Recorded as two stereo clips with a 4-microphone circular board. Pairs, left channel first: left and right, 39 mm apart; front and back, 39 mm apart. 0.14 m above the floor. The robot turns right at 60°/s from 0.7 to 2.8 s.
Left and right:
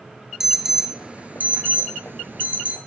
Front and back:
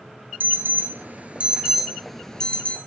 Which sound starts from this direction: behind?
An alarm, at 0.4 s.